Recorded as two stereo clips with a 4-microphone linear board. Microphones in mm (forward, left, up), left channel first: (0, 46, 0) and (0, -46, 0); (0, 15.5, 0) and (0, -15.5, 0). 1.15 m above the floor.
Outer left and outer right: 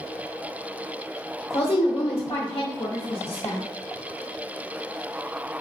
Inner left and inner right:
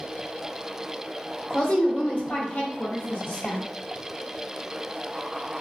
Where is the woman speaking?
60° left (ahead or behind), 0.6 m.